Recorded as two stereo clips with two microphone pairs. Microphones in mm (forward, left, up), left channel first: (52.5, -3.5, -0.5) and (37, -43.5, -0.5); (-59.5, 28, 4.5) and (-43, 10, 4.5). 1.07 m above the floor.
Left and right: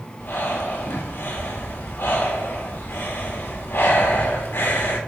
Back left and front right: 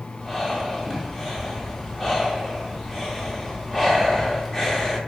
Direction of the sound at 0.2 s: 60° left.